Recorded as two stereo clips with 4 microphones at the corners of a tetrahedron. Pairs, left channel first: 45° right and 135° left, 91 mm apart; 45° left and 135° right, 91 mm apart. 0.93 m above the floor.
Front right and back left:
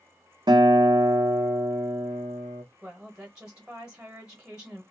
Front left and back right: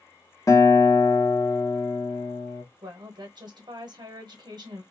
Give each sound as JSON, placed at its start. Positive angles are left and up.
{"t": 0.5, "sound": "a guitar", "azimuth_deg": 100, "distance_m": 0.6}
{"t": 2.8, "sound": "a woman speaking", "azimuth_deg": -145, "distance_m": 0.9}